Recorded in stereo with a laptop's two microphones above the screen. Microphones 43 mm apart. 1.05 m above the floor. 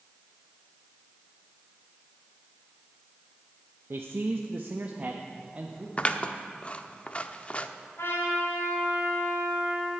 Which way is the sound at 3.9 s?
70° right (ahead or behind).